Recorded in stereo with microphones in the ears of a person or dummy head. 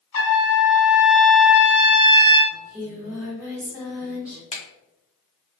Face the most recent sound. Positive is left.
turn(degrees=30)  # may be behind; listen again after turning